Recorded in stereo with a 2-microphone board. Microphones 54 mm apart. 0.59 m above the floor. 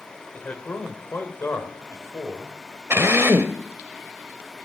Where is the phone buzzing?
I don't hear a phone buzzing.